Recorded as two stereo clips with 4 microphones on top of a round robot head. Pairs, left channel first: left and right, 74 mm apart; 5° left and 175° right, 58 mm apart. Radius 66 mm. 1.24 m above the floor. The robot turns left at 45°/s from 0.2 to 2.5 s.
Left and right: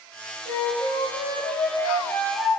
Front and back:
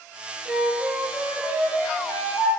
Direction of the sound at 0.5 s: 100° left.